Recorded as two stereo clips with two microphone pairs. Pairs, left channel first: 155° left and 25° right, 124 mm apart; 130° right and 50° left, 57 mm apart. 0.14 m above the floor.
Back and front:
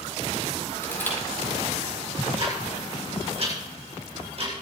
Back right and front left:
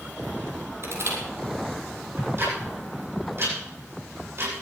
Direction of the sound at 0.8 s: 85° left.